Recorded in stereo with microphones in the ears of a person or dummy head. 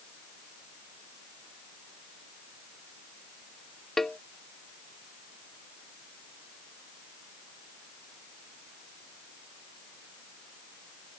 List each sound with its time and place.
4.0 s a cowbell: centre (ahead or behind)